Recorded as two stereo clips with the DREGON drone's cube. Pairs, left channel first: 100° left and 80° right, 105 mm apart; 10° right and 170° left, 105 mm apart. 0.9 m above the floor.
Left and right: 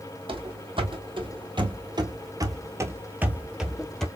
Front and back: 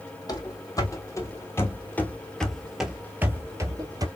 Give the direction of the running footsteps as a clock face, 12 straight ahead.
2 o'clock.